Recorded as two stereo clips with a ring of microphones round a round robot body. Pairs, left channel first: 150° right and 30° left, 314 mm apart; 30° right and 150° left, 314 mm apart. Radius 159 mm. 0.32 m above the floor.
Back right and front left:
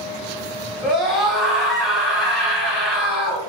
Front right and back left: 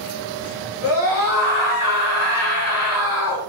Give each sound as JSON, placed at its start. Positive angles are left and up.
{"t": 0.8, "sound": "a scream", "azimuth_deg": -60, "distance_m": 1.7}